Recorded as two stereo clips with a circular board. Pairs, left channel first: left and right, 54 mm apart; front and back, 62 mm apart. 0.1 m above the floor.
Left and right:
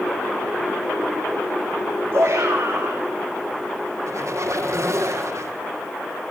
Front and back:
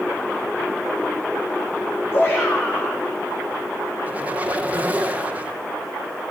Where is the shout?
45° right, 5.5 m.